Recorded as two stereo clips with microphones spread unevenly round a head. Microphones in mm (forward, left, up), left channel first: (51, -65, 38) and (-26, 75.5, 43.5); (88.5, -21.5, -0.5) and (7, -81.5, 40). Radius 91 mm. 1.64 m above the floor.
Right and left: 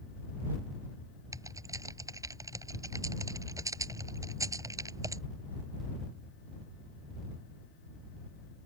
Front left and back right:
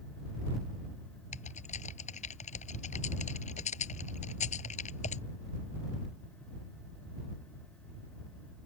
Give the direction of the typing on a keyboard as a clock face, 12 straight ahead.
10 o'clock.